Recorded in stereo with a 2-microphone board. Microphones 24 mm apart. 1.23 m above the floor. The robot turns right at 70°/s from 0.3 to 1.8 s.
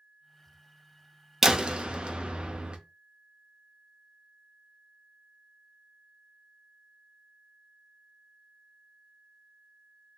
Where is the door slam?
20° right (ahead or behind), 0.5 m; by 2.8 s 45° right (ahead or behind), 0.5 m.